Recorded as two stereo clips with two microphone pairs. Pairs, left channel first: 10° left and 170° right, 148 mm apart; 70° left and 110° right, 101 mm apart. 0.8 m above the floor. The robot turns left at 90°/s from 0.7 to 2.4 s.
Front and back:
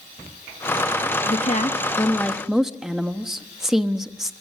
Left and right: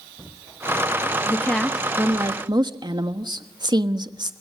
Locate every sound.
1.3 s a woman speaking: 20° left, 1.3 m; by 4.3 s 85° right, 1.3 m